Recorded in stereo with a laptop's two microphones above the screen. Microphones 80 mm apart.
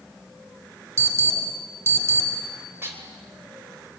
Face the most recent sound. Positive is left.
turn(degrees=-30)  # may be behind; listen again after turning